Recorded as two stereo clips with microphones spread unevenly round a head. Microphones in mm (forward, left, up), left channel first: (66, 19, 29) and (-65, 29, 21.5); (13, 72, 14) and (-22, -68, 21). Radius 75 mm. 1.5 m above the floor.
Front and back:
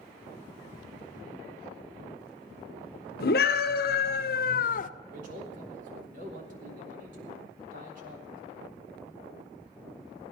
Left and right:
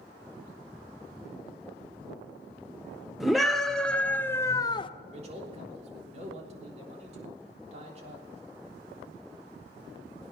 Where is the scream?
15° right, 1.4 m; by 4.9 s 20° left, 0.6 m.